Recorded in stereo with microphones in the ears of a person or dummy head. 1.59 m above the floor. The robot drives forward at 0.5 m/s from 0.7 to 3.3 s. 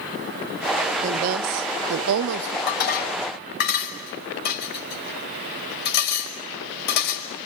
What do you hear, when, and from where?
1.0 s a woman speaking: 40° right (ahead or behind), 0.7 m; by 2.6 s 50° right (ahead or behind), 0.6 m
2.7 s dishes clattering: 55° left (ahead or behind), 5.5 m; by 7.5 s 60° left (ahead or behind), 5.5 m